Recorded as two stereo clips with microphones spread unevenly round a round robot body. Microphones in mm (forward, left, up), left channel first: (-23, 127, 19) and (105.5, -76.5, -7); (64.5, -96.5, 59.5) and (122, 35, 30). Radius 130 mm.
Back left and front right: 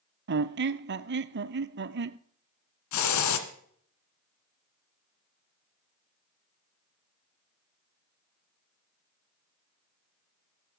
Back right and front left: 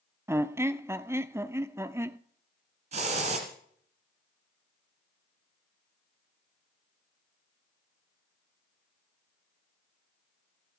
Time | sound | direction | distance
0.3 | a squeak | 10° right | 0.7 m
2.9 | a hiss | 115° left | 1.9 m